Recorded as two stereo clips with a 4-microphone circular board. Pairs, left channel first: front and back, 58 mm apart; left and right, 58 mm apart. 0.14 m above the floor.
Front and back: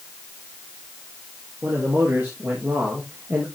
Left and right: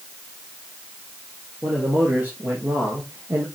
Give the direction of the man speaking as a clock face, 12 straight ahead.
5 o'clock.